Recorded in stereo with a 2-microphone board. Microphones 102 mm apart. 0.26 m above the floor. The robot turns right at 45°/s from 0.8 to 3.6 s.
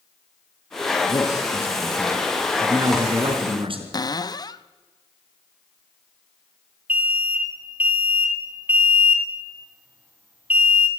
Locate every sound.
1.1 s a man speaking: 135° left, 3.5 m; by 3.8 s 110° right, 3.5 m
3.9 s a cupboard door: 40° left (ahead or behind), 0.6 m
6.9 s an alarm: 15° right (ahead or behind), 1.9 m